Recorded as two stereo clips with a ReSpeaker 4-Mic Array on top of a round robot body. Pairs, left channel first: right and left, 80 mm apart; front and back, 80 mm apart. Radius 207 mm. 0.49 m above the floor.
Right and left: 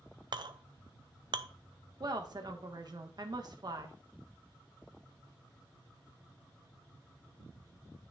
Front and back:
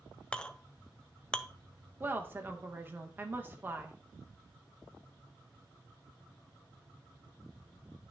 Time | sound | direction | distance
0.3 | a clink | 75° left | 0.6 m
2.0 | a woman speaking | 120° left | 1.3 m